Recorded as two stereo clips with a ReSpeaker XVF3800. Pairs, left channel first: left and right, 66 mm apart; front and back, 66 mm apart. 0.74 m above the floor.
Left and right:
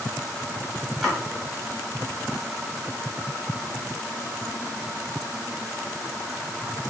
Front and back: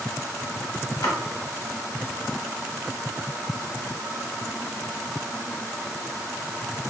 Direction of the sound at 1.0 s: Straight ahead.